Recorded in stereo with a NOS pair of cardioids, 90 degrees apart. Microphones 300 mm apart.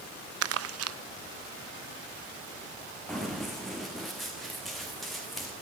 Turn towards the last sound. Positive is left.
turn(degrees=0)